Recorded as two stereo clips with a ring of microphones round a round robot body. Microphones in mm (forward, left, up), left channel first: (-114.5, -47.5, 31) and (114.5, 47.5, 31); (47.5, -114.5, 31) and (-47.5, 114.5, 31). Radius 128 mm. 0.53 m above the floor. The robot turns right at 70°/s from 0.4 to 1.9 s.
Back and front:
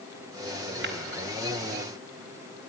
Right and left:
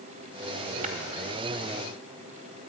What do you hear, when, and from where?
0.8 s tapping: 55° left, 1.7 m; by 0.9 s 65° left, 1.7 m